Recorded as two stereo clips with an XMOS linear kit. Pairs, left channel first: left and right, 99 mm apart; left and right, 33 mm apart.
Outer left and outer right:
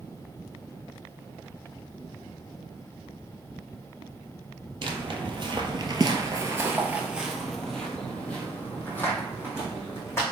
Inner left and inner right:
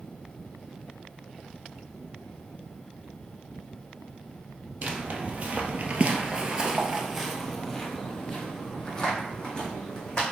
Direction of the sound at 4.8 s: 55° right (ahead or behind).